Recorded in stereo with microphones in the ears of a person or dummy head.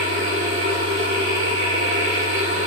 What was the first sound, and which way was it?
A machine running, 50° right (ahead or behind).